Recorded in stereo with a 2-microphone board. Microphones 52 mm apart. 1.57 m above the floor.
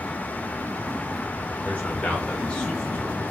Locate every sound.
1.6 s a man speaking: 30° left (ahead or behind), 2 m; by 3.2 s 15° left (ahead or behind), 1.3 m